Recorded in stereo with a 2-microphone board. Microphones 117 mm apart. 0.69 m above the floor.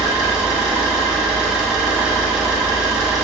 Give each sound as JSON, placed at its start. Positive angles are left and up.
{"t": 0.0, "sound": "an engine running", "side_deg": -5, "distance_m": 0.8}